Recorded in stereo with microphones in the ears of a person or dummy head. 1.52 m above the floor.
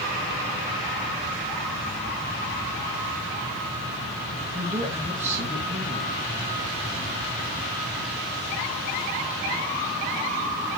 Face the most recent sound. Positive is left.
turn(degrees=-15)  # may be behind; listen again after turning